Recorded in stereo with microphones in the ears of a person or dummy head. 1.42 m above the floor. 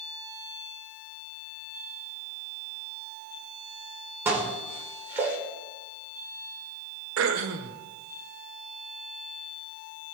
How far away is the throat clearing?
About 1.2 m.